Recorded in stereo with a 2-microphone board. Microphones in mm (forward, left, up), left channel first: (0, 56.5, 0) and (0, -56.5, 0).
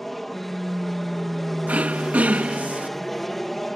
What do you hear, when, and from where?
0.0 s an aircraft: centre (ahead or behind)
1.7 s throat clearing: 15° right (ahead or behind)